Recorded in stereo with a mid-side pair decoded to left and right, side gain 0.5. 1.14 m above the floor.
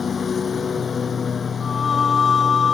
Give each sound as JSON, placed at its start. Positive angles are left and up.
{"t": 0.0, "sound": "a lawn mower", "azimuth_deg": 40}
{"t": 1.6, "sound": "singing", "azimuth_deg": 40}